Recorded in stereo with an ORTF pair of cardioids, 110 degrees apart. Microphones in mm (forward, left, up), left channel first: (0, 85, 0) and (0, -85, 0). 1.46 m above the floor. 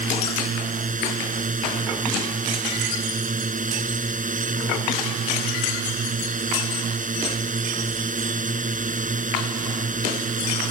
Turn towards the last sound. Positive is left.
turn(degrees=-55)